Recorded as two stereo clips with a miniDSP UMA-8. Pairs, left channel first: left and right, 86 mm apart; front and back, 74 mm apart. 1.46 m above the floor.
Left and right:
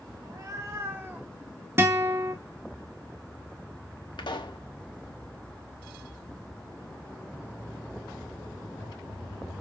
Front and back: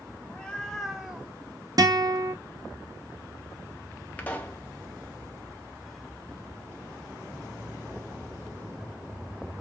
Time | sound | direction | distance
0.2 | a cat meowing | 65° right | 1.1 m
1.8 | a guitar | 150° right | 1.0 m
4.2 | a pop | 70° left | 1.0 m